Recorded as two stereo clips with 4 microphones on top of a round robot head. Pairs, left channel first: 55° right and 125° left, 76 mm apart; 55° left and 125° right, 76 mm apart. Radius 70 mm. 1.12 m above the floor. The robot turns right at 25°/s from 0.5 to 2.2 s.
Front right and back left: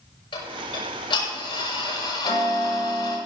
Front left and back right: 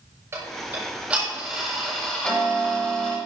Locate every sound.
0.3 s ticking: 65° right, 7.5 m; by 3.2 s 25° right, 7.5 m